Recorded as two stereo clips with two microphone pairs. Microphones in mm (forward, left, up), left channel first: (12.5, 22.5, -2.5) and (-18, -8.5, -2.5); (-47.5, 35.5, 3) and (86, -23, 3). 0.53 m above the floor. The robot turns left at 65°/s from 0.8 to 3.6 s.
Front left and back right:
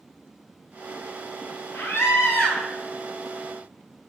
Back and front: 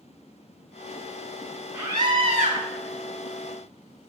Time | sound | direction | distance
1.7 | a scream | 35° left | 4 m